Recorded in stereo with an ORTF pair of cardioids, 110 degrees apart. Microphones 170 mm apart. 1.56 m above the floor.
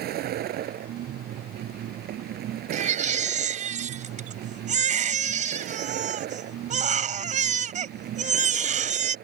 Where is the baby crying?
45° right.